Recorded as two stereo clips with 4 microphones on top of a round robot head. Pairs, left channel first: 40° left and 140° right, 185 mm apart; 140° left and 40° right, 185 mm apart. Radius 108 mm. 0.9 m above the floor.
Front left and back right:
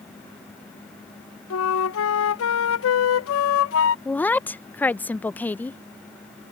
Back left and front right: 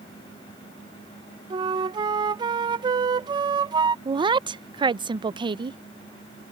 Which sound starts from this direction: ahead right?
A woman speaking, at 4.0 s.